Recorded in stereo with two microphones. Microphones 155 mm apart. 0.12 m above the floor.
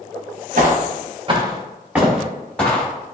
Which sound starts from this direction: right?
Footsteps, at 0.6 s.